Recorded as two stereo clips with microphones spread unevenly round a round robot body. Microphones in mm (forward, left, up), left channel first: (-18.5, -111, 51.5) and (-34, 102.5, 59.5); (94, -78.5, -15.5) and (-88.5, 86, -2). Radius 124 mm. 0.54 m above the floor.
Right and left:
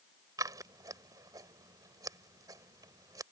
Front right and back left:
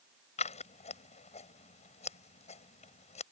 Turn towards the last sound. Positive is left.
turn(degrees=20)